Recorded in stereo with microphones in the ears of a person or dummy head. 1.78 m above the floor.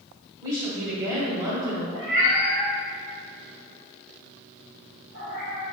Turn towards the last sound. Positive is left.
turn(degrees=-30)  # may be behind; listen again after turning